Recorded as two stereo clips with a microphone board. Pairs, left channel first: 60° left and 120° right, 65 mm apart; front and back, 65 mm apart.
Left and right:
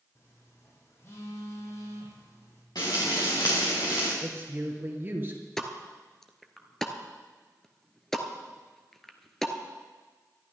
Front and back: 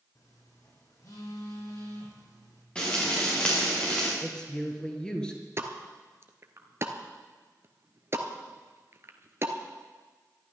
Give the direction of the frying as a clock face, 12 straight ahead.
10 o'clock.